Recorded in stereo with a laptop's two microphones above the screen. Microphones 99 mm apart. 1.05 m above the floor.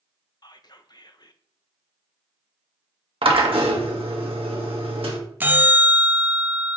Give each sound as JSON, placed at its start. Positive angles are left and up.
{"t": 0.4, "sound": "whispering", "side_deg": 45, "distance_m": 0.6}
{"t": 3.2, "sound": "a drill", "side_deg": -70, "distance_m": 1.4}
{"t": 5.4, "sound": "a bell", "side_deg": -20, "distance_m": 0.5}